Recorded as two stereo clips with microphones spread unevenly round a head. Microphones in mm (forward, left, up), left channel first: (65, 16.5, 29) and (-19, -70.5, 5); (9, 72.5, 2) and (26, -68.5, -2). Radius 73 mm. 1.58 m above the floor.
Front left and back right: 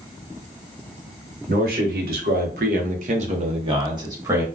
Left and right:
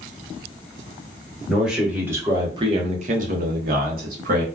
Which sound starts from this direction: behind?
A man speaking, at 1.5 s.